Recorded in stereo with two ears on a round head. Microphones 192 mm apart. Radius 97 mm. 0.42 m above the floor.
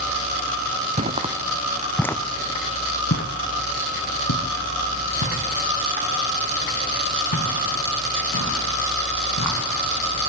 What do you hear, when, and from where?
1.0 s footsteps: 35° right (ahead or behind), 1.4 m; by 9.6 s 85° left, 7 m